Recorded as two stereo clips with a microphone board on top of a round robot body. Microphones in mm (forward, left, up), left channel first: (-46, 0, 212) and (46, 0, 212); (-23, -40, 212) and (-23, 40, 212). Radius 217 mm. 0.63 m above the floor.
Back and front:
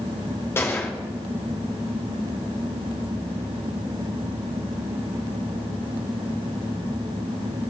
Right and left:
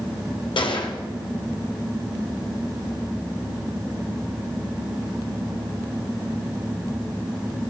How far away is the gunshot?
About 1.3 m.